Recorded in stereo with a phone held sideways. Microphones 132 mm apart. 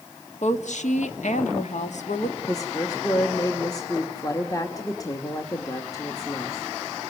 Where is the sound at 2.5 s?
25° left (ahead or behind), 1.6 m.